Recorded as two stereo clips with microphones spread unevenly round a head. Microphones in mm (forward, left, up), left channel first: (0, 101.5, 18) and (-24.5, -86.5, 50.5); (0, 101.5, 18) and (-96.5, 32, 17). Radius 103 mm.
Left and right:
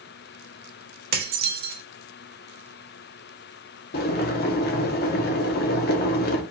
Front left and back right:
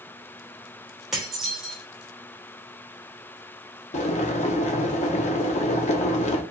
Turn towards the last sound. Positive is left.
turn(degrees=40)